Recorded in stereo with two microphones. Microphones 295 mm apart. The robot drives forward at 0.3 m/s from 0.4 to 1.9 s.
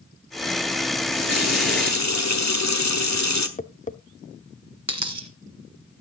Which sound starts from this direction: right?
A dropped coin, at 4.9 s.